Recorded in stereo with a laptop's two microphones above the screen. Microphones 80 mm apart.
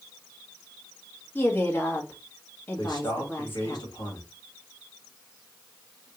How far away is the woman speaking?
About 1.6 m.